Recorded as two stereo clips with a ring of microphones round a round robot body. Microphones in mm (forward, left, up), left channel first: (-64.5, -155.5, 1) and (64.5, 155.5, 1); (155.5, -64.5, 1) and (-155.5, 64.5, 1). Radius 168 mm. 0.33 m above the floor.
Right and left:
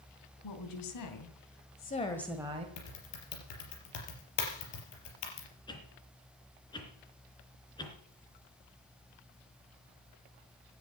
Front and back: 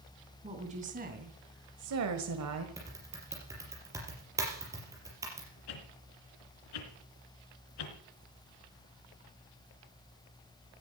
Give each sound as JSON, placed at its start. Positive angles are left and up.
{"t": 0.4, "sound": "a woman speaking", "azimuth_deg": -130, "distance_m": 3.0}
{"t": 2.8, "sound": "typing on a keyboard", "azimuth_deg": -120, "distance_m": 4.5}
{"t": 5.7, "sound": "a whoosh", "azimuth_deg": -35, "distance_m": 3.0}